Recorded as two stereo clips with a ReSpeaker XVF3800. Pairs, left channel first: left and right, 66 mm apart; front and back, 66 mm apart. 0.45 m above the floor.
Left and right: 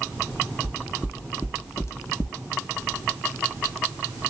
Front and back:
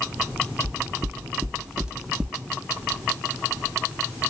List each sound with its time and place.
0.6 s footsteps: 155° left, 1.0 m; by 2.4 s 80° left, 0.6 m